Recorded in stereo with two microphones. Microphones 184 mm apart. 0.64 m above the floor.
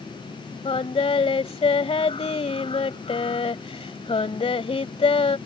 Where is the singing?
35° left (ahead or behind).